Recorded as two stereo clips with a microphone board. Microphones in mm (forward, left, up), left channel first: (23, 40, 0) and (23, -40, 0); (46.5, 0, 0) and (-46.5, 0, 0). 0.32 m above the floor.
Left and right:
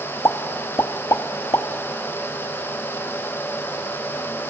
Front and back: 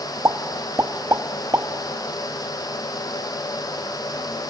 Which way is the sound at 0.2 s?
130° left.